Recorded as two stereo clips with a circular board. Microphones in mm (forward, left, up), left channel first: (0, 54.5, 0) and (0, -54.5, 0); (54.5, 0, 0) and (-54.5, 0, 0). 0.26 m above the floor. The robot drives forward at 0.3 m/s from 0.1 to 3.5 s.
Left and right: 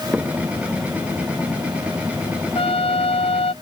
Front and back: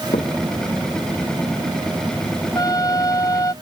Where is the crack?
10° right.